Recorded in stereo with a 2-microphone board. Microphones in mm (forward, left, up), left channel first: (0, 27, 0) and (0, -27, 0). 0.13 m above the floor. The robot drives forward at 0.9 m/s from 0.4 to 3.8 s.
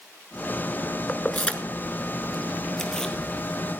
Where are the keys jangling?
25° left (ahead or behind), 1.0 m; by 3.1 s 10° left (ahead or behind), 2.5 m.